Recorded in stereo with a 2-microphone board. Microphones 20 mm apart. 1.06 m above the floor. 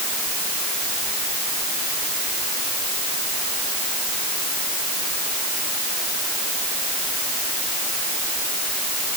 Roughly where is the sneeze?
No sneeze in this recording.